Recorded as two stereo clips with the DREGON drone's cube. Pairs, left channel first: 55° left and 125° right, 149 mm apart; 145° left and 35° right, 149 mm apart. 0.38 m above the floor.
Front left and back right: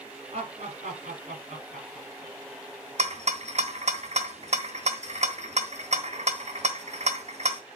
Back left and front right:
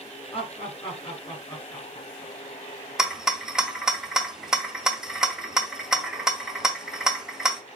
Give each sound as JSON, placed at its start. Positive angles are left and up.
{"t": 0.3, "sound": "laughter", "azimuth_deg": -170, "distance_m": 3.5}
{"t": 3.0, "sound": "a rattle", "azimuth_deg": -120, "distance_m": 1.3}